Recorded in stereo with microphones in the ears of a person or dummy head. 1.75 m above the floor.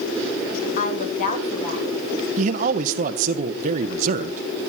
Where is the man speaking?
45° right (ahead or behind), 0.8 m.